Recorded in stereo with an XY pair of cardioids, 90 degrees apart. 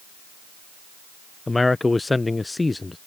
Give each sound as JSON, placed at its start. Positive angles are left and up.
{"t": 1.5, "sound": "a man speaking", "azimuth_deg": 20}